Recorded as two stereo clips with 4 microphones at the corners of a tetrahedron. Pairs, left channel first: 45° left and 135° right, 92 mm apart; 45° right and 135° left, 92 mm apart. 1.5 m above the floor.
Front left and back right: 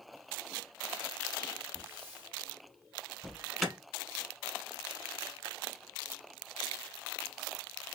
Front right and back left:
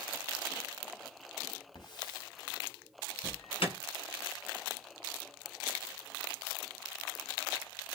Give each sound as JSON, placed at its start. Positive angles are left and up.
{"t": 1.8, "sound": "a hiss", "azimuth_deg": -70, "distance_m": 1.7}
{"t": 3.2, "sound": "an alarm", "azimuth_deg": -50, "distance_m": 1.1}